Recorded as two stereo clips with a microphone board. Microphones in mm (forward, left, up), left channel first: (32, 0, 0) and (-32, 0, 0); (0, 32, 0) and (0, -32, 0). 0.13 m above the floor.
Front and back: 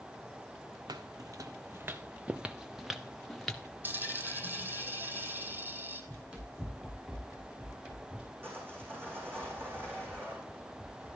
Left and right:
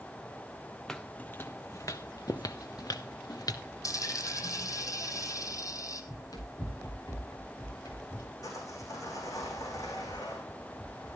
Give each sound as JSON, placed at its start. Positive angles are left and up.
{"t": 0.9, "sound": "footsteps", "azimuth_deg": 175, "distance_m": 0.7}
{"t": 3.8, "sound": "a dropped coin", "azimuth_deg": 120, "distance_m": 1.6}
{"t": 6.1, "sound": "running footsteps", "azimuth_deg": 105, "distance_m": 9.0}
{"t": 8.4, "sound": "sawing", "azimuth_deg": 125, "distance_m": 5.5}